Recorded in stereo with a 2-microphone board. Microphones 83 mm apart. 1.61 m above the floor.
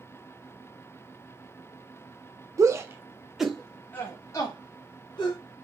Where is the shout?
40° right (ahead or behind), 0.7 m; by 5.4 s 60° left (ahead or behind), 1.1 m.